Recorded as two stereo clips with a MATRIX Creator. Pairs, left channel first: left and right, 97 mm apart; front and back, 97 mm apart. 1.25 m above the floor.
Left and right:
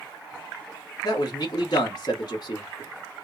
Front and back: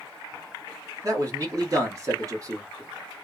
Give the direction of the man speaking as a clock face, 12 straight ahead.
8 o'clock.